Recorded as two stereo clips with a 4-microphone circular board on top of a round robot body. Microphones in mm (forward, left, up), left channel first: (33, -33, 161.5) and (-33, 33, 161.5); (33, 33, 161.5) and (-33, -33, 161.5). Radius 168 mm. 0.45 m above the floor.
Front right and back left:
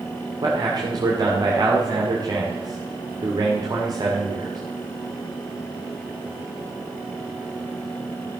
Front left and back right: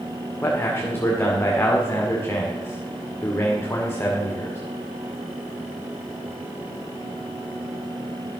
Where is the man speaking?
105° left, 2 m.